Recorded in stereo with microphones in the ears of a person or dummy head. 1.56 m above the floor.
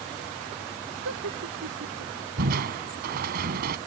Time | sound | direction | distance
1.1 | laughter | 75° right (ahead or behind) | ?
2.4 | crushing | 50° right (ahead or behind) | ?